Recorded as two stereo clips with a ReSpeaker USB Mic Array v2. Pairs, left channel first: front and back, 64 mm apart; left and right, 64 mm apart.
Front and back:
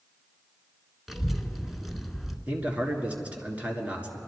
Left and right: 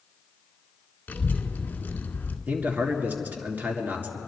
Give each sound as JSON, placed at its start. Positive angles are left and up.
{"t": 1.1, "sound": "a child speaking", "azimuth_deg": 95, "distance_m": 1.2}
{"t": 2.5, "sound": "a man speaking", "azimuth_deg": -130, "distance_m": 1.9}